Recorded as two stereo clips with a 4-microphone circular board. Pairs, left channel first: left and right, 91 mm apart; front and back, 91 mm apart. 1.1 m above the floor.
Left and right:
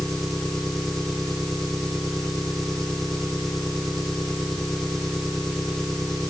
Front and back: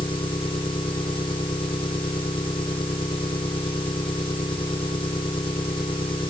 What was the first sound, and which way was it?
An engine running, 5° left.